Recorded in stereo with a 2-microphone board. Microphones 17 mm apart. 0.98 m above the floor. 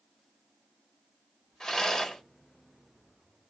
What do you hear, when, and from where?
1.6 s a rattle: 40° left (ahead or behind), 1.3 m